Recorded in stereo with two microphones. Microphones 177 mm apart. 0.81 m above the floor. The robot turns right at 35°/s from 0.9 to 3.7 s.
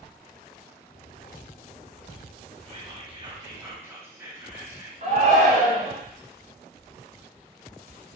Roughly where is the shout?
Right.